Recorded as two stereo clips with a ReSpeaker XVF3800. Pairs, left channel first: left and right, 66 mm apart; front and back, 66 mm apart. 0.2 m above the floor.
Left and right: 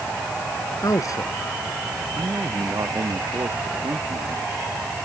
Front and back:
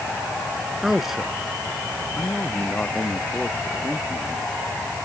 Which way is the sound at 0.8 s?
95° left.